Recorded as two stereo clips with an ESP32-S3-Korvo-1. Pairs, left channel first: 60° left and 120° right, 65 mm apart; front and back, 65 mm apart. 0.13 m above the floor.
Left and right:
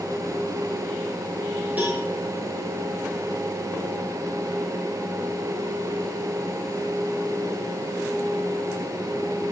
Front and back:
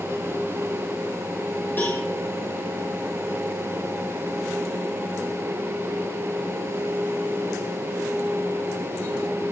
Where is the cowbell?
55° right, 5 m.